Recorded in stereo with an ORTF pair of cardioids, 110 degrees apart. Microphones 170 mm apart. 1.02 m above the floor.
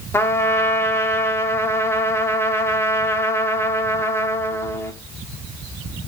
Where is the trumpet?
15° left, 1.7 m.